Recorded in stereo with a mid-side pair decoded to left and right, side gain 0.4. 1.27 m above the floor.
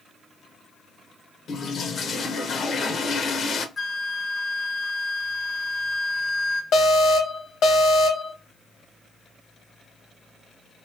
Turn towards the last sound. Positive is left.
turn(degrees=70)